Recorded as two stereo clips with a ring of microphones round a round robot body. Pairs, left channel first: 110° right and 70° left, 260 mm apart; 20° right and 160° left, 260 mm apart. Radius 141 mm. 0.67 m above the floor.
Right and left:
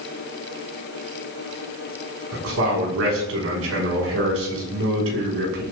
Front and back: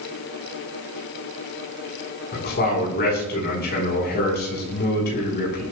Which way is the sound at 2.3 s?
30° left.